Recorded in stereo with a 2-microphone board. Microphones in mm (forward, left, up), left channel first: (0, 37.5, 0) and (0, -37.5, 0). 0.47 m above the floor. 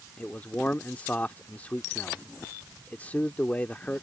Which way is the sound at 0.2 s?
20° left (ahead or behind).